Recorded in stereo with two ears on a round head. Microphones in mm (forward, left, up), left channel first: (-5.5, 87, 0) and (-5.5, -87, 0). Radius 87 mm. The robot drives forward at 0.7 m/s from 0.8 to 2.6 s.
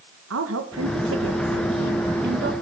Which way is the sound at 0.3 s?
80° right.